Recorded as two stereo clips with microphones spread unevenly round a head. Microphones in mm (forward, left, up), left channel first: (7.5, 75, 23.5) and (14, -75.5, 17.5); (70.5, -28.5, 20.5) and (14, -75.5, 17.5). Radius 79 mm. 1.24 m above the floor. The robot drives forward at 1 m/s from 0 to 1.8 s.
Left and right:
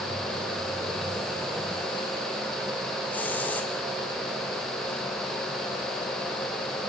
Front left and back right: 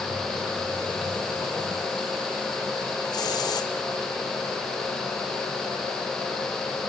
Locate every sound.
3.1 s a hiss: 15° left, 3 m